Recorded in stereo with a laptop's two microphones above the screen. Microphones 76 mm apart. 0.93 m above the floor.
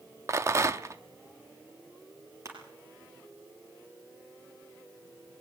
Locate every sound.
0.3 s a rattle: 35° right (ahead or behind), 0.6 m
2.5 s crushing: 40° right (ahead or behind), 4.5 m